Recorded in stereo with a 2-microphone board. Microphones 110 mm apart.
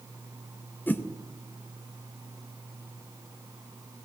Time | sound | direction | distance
0.9 | a whoosh | 15° left (ahead or behind) | 0.7 m